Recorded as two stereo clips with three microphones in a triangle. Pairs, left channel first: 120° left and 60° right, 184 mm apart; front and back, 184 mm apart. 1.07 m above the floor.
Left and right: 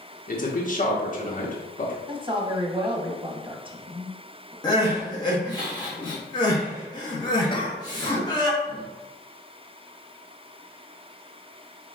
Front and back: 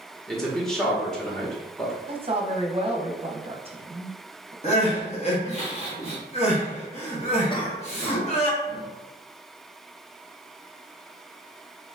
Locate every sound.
0.3 s a man speaking: 85° left, 1.2 m
2.1 s a woman speaking: 120° right, 0.9 m
4.6 s crying: 50° left, 1.3 m
7.5 s a cough: 60° left, 1.1 m